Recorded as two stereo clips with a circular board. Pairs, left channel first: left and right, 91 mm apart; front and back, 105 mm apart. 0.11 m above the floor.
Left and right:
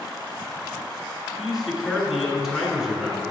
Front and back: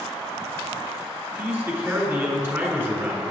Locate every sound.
1.4 s a man speaking: 170° right, 1.5 m